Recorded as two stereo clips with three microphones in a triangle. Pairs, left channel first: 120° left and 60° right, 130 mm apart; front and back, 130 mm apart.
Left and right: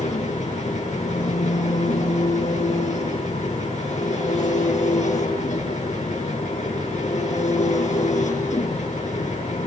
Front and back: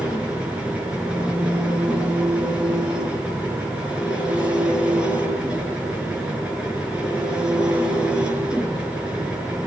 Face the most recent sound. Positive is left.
turn(degrees=100)